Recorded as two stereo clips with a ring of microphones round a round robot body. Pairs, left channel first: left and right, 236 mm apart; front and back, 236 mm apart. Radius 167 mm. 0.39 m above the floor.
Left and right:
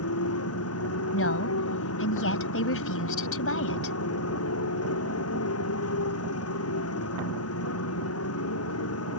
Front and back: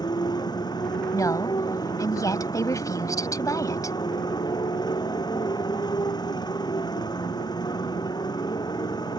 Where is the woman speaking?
75° left.